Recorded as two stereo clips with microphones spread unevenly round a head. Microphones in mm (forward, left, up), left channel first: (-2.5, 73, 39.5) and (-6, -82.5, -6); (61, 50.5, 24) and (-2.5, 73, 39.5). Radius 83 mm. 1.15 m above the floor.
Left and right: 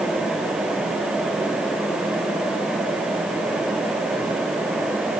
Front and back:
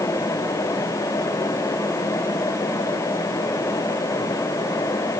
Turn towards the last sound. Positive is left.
No sound to turn to.